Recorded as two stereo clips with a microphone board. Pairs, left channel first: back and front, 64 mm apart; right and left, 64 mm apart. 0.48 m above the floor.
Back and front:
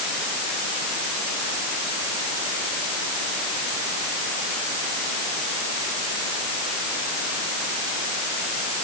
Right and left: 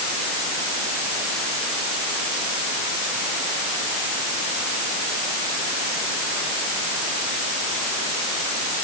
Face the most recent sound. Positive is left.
No sound to turn to.